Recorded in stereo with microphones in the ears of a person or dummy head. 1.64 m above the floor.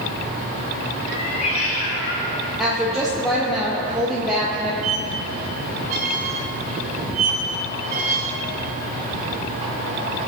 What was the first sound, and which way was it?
A cat meowing, 45° left (ahead or behind).